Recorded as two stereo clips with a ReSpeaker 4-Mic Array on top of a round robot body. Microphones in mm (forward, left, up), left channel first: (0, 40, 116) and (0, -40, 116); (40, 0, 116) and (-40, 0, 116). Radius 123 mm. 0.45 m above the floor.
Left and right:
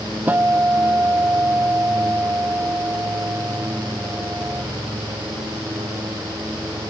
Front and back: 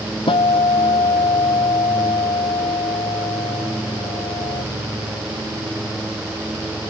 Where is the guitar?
20° right.